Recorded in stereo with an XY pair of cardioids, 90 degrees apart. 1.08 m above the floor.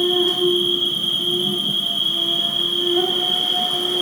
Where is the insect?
25° right, 1.7 m.